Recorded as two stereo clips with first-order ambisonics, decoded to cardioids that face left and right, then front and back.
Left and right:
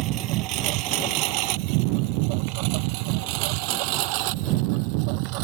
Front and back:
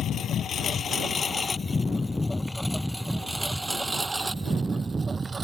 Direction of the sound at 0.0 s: 55° right.